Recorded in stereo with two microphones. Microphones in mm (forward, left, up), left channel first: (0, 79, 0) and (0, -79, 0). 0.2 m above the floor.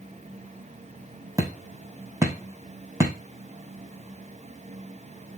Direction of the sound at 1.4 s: 20° right (ahead or behind).